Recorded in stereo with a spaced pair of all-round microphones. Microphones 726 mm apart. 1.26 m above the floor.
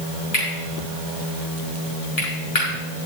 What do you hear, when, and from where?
0.3 s cutlery clinking: 50° left (ahead or behind), 5.5 m